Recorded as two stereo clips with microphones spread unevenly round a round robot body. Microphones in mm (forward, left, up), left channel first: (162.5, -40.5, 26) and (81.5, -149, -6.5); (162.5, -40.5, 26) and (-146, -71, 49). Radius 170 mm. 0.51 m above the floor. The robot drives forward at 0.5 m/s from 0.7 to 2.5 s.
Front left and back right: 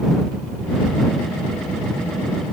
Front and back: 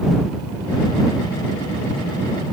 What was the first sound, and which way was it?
Only background noise.